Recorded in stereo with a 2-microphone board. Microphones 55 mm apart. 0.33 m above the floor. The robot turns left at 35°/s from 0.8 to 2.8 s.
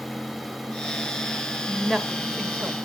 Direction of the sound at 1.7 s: 5° left (ahead or behind).